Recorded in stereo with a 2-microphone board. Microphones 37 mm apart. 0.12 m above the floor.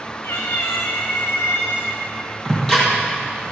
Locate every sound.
0.2 s a cat meowing: 70° left (ahead or behind), 1.4 m
2.5 s ticking: 15° left (ahead or behind), 4 m